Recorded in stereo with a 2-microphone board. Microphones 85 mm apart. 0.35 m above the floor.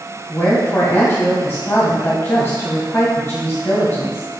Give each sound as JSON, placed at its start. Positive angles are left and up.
{"t": 0.3, "sound": "a woman speaking", "side_deg": 35, "distance_m": 1.8}